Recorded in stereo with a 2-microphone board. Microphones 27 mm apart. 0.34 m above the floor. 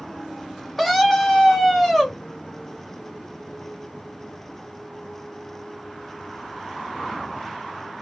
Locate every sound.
0.8 s a scream: centre (ahead or behind), 0.9 m